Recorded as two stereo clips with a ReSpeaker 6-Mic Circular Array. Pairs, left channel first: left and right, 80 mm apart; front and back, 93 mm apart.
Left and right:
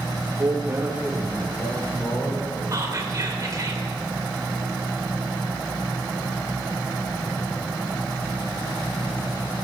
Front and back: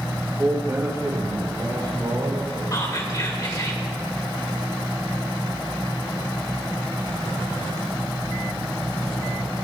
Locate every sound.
0.2 s a man speaking: 110° right, 1.9 m; by 2.6 s 145° left, 2.5 m
2.7 s whispering: 45° right, 1.9 m